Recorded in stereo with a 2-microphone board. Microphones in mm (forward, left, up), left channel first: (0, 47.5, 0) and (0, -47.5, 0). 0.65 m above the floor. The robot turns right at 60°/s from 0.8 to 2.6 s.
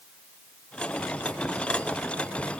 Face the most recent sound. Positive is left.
No sound to turn to.